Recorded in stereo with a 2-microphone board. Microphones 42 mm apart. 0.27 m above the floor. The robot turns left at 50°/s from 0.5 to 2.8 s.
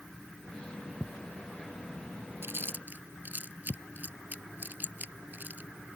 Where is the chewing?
65° right (ahead or behind); by 5.7 s 45° right (ahead or behind).